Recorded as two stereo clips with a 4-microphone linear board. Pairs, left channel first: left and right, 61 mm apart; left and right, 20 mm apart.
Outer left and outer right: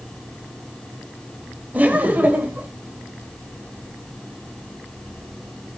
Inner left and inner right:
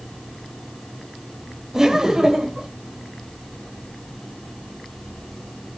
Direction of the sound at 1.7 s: 25° right (ahead or behind).